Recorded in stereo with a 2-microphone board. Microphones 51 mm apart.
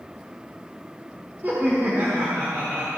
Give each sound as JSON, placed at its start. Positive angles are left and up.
{"t": 1.4, "sound": "laughter", "side_deg": -35, "distance_m": 1.6}